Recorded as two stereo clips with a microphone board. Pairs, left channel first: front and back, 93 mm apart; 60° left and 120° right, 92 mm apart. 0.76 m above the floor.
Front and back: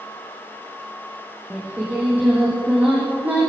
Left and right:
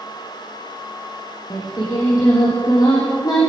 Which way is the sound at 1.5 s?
110° left.